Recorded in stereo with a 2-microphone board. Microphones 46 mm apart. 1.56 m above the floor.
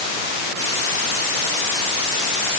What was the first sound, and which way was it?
Only background noise.